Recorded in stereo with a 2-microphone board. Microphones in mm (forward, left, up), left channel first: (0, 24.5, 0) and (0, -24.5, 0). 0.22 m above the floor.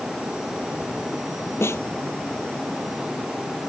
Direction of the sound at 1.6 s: 60° left (ahead or behind).